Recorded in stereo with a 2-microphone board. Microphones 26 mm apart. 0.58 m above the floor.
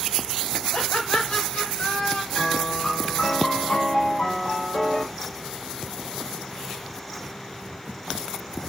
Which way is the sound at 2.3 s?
70° left (ahead or behind).